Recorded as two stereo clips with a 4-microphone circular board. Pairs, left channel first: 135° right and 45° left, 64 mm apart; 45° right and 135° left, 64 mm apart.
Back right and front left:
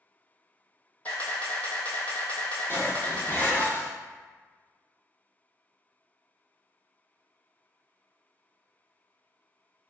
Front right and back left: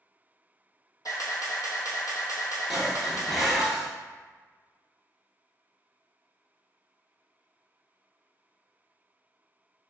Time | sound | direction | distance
1.1 | a camera shutter | 70° right | 1.0 m
2.7 | dishes clattering | 135° right | 0.9 m